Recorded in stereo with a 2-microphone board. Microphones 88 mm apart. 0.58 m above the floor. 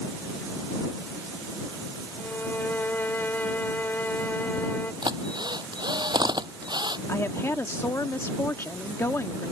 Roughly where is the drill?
Right.